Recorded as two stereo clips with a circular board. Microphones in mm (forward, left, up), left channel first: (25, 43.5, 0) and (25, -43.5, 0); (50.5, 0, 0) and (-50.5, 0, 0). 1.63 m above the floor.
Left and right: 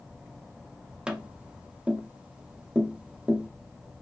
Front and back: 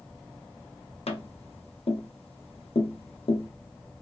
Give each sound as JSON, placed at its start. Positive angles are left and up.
{"t": 1.1, "sound": "tapping", "azimuth_deg": -10, "distance_m": 0.7}